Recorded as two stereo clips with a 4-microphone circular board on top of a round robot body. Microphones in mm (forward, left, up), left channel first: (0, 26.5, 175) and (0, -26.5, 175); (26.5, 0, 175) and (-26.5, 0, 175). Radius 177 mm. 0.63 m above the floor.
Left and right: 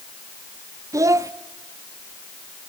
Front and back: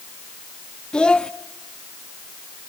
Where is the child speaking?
75° right, 0.8 m.